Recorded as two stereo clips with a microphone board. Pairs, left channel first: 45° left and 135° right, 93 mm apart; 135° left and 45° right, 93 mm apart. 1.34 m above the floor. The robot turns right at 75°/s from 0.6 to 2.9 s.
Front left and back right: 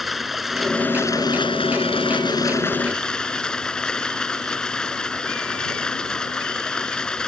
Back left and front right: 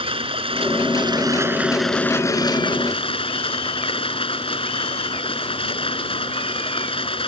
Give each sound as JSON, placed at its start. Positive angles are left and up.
{"t": 0.0, "sound": "running water", "azimuth_deg": -45}